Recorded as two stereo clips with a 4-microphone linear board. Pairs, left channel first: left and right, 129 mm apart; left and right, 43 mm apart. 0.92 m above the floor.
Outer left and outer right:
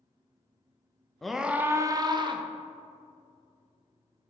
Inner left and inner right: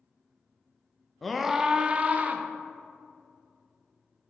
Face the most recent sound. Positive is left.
turn(degrees=-40)  # may be behind; listen again after turning